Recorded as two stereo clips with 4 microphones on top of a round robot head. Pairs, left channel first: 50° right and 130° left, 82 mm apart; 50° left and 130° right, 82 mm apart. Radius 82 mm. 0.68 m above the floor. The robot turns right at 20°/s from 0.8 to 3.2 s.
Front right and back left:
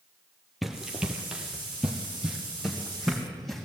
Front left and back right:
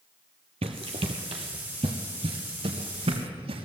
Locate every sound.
0.6 s running footsteps: 140° right, 1.4 m; by 3.7 s 135° right, 3 m